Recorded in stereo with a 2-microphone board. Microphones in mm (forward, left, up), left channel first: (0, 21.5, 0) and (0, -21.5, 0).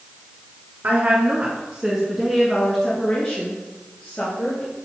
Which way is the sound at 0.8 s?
40° right (ahead or behind).